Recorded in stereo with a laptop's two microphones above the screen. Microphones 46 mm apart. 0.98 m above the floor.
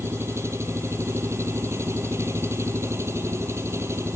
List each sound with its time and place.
0.0 s an engine running: 85° right